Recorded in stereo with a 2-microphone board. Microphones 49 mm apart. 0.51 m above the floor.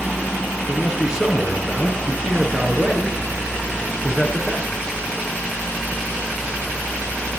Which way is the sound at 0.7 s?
15° right (ahead or behind).